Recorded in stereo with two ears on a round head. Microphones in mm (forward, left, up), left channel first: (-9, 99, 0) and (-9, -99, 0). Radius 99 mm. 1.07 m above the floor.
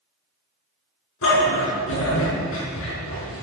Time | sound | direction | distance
1.2 | a dog barking | 65° left (ahead or behind) | 6 m